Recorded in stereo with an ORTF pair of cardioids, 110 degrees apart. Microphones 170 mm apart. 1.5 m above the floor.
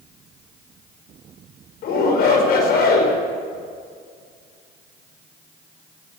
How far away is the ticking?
I don't hear ticking.